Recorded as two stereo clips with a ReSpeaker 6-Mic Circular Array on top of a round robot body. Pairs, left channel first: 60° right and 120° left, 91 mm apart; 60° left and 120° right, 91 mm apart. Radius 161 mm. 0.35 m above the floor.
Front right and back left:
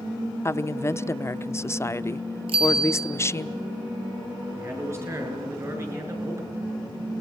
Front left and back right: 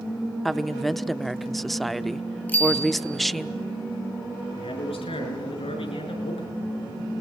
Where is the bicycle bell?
130° left, 7.5 m.